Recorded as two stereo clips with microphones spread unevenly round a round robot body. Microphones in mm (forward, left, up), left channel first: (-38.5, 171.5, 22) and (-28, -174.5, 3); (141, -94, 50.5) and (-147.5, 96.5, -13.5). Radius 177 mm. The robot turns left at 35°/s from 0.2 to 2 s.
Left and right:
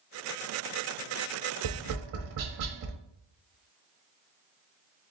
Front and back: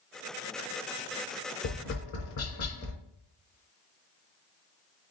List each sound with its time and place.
1.6 s tapping: 70° right, 0.9 m; by 3.0 s 85° right, 0.9 m